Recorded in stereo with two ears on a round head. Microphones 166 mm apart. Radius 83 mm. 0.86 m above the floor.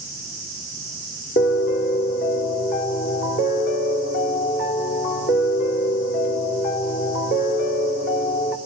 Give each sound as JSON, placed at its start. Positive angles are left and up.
{"t": 1.4, "sound": "a piano", "side_deg": 50, "distance_m": 2.5}